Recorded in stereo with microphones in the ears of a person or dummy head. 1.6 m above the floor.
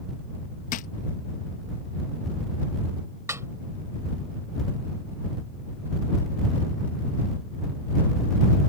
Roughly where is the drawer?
Left.